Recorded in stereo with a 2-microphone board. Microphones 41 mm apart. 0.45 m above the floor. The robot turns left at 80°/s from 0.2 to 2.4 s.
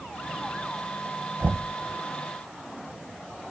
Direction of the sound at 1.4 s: 70° right (ahead or behind).